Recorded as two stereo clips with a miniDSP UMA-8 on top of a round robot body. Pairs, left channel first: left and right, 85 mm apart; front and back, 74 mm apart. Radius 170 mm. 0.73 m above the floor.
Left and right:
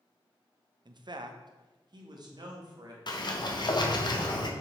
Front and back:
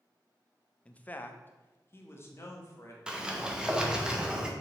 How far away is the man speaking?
About 0.7 m.